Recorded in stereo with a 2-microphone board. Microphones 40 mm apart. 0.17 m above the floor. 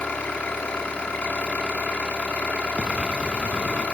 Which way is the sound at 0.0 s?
25° left (ahead or behind).